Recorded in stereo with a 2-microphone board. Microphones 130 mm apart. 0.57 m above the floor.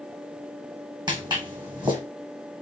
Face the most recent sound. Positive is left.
turn(degrees=-35)  # may be behind; listen again after turning